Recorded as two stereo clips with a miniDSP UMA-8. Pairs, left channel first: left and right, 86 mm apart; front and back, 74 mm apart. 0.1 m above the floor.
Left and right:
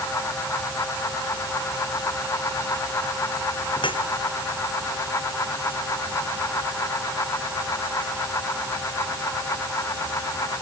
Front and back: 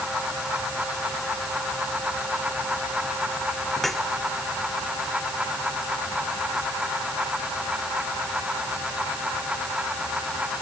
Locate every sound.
3.8 s dripping: 85° left